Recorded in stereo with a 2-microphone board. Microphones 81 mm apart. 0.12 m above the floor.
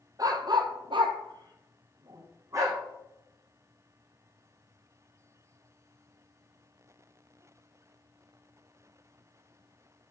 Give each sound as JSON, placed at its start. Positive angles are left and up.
{"t": 0.2, "sound": "a dog barking", "side_deg": -50, "distance_m": 0.9}